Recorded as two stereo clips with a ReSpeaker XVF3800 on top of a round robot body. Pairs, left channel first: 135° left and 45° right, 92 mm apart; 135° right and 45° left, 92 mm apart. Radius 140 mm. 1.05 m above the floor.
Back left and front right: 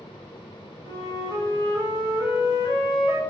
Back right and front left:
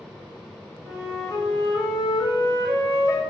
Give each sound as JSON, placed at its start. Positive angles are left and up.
{"t": 0.8, "sound": "a flute", "azimuth_deg": -95, "distance_m": 3.5}